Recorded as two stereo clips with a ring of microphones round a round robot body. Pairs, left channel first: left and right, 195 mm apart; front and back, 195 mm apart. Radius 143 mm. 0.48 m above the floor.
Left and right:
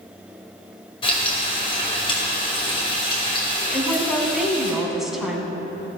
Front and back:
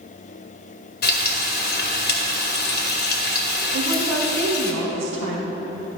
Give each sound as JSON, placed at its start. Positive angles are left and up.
{"t": 1.0, "sound": "frying", "azimuth_deg": 25, "distance_m": 1.9}
{"t": 3.7, "sound": "a woman speaking", "azimuth_deg": 180, "distance_m": 3.5}